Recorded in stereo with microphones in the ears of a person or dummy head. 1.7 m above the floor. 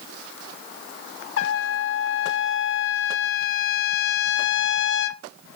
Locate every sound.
1.4 s a trumpet: 75° left (ahead or behind), 1.1 m